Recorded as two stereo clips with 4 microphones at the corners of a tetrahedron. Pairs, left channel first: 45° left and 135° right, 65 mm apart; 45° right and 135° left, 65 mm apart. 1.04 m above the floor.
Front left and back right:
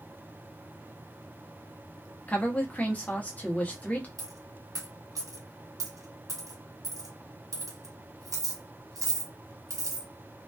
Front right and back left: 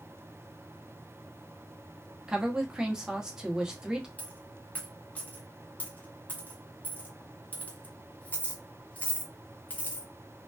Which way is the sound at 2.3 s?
75° left.